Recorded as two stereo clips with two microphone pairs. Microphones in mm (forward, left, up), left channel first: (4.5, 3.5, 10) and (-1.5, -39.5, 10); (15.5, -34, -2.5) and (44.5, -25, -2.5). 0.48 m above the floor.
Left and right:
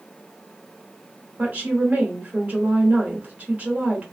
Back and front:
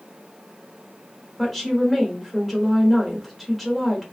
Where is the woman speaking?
60° right, 1.3 m.